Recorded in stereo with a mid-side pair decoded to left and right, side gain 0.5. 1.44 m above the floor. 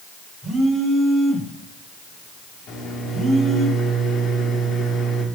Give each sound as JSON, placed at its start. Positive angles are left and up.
{"t": 0.4, "sound": "a phone buzzing", "azimuth_deg": 0, "distance_m": 4.5}
{"t": 2.7, "sound": "a microwave", "azimuth_deg": 60, "distance_m": 2.0}